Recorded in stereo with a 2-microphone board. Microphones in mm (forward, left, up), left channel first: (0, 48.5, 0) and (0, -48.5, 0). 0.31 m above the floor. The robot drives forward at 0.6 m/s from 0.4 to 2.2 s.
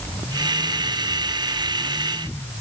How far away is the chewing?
No chewing in this recording.